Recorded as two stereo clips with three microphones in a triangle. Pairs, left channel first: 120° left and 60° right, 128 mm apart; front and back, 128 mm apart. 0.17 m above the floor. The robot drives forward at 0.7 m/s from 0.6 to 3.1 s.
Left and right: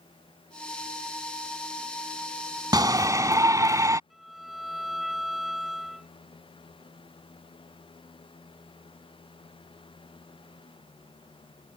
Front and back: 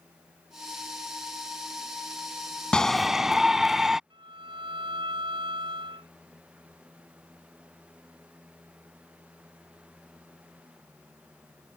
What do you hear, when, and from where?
2.7 s a shout: 80° right; by 4.0 s 95° right
4.1 s a violin: 150° right